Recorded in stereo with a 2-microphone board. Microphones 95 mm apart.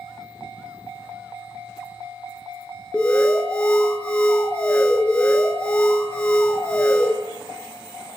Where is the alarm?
15° left (ahead or behind), 1.5 m.